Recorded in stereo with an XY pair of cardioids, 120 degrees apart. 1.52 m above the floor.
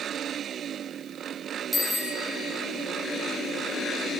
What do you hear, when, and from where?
1.7 s a bicycle bell: straight ahead, 6 m